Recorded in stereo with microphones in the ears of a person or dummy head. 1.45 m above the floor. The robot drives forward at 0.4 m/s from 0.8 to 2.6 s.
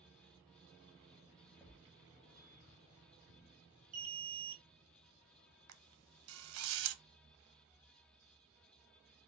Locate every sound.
1.6 s a thud: centre (ahead or behind), 1.3 m
3.9 s an alarm: 40° right (ahead or behind), 1.2 m
5.7 s a camera shutter: 85° right, 0.7 m